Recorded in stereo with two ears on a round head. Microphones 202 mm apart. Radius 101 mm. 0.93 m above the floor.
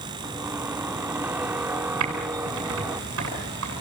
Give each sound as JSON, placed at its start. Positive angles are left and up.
{"t": 0.2, "sound": "a squeak", "side_deg": -10, "distance_m": 0.7}
{"t": 2.0, "sound": "typing on a keyboard", "side_deg": -65, "distance_m": 10.0}